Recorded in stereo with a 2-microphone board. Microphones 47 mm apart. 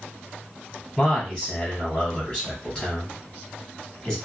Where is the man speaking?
15° left (ahead or behind), 1.7 m.